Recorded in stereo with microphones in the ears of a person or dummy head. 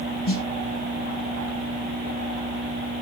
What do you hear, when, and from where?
0.3 s a snare drum: 50° left (ahead or behind), 1.9 m